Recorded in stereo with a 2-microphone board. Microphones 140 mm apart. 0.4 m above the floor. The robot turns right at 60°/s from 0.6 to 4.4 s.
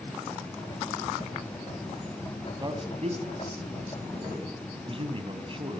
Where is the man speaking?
25° right (ahead or behind), 3 m; by 5.8 s 40° right (ahead or behind), 3 m.